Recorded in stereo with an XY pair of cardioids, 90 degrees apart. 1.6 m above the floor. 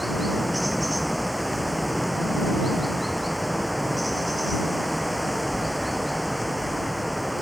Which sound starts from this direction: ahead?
Running water, at 0.0 s.